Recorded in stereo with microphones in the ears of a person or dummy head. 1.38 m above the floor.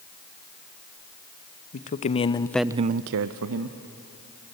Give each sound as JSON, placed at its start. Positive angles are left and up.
{"t": 1.7, "sound": "a man speaking", "side_deg": 45, "distance_m": 1.3}